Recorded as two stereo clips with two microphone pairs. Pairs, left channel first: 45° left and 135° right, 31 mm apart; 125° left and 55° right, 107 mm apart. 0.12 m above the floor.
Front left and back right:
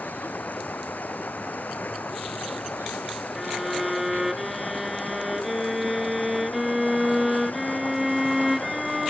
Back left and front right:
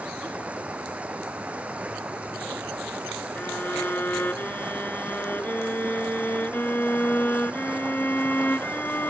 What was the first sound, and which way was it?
Running water, 25° left.